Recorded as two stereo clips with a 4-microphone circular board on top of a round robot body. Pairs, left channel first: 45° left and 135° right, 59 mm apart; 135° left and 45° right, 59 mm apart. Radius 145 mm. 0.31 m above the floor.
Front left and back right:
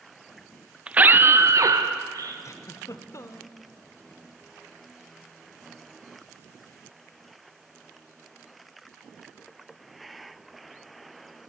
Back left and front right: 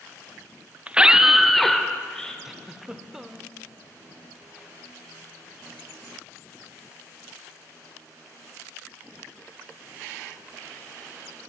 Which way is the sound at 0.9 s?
85° right.